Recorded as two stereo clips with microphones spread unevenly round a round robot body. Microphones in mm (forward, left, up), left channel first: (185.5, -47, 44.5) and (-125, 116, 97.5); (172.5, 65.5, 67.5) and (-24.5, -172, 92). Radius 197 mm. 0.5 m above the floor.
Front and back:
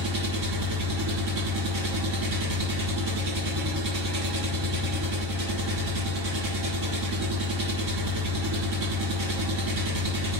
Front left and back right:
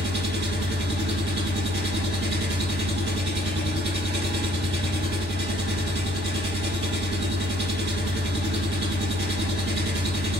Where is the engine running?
175° left, 1.4 m.